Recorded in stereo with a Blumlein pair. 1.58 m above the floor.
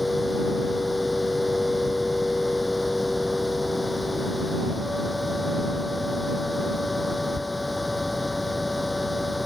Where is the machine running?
10° left.